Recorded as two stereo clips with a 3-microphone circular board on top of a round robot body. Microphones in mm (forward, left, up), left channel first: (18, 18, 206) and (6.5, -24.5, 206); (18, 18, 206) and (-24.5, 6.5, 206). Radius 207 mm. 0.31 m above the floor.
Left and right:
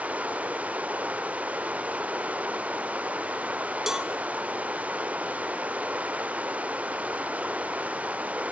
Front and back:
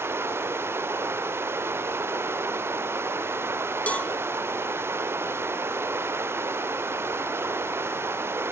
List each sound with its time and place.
0.0 s running water: 160° right, 1.1 m
3.9 s a cowbell: 30° right, 1.6 m